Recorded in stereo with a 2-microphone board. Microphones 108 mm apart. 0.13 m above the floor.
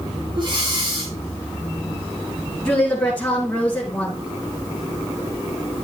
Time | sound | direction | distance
0.3 | breathing | 45° right (ahead or behind) | 4 m
2.6 | a woman speaking | 10° left (ahead or behind) | 2.5 m